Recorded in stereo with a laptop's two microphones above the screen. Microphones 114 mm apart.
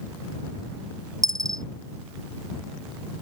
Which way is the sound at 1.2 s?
35° right (ahead or behind).